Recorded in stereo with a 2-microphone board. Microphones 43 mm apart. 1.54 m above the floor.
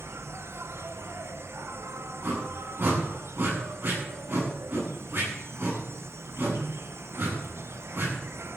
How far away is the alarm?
No alarm in this recording.